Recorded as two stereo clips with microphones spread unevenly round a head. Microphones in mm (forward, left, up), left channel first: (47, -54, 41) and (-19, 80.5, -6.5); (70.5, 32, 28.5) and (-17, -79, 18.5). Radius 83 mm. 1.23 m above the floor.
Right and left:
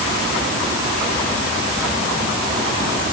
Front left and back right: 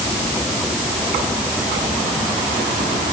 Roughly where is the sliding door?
No sliding door in this recording.